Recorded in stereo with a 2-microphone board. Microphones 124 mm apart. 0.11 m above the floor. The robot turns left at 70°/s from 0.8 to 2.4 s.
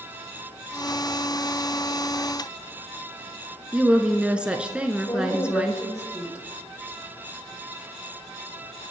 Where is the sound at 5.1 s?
25° left (ahead or behind), 4.5 m.